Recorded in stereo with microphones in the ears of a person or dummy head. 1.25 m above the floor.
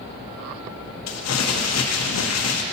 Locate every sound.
1.1 s crumpling: 75° left (ahead or behind), 0.7 m